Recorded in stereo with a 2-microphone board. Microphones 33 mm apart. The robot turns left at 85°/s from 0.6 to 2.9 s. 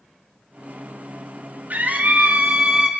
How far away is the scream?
About 2.5 m.